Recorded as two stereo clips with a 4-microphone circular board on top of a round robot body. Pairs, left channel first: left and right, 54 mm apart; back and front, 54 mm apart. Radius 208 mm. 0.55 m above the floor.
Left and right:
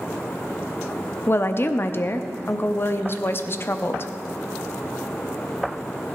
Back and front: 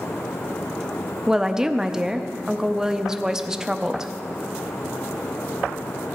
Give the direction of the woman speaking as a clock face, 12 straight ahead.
9 o'clock.